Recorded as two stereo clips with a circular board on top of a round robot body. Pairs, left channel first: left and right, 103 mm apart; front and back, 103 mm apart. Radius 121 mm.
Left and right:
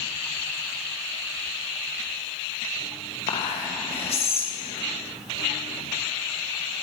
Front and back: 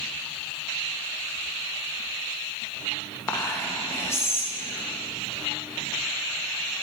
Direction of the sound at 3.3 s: 65° left.